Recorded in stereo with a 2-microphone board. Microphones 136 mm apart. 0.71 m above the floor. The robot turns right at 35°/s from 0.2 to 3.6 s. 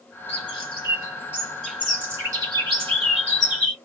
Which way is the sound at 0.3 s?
50° left (ahead or behind).